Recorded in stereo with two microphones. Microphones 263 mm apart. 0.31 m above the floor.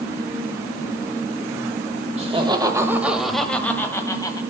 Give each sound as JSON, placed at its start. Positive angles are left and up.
{"t": 2.2, "sound": "laughter", "side_deg": -25, "distance_m": 1.0}